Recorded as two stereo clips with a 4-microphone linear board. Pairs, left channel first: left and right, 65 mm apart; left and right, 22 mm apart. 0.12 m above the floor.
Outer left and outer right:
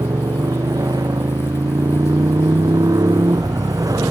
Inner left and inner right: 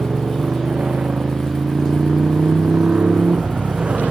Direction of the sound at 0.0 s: 75° right (ahead or behind).